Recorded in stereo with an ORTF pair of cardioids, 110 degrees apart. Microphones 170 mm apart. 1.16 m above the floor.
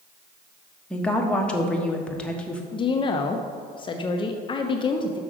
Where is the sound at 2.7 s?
30° left, 0.6 m.